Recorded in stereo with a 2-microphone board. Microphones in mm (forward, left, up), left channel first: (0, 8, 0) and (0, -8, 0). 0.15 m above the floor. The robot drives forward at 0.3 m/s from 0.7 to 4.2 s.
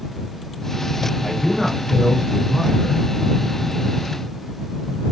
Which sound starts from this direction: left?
A man speaking, at 1.2 s.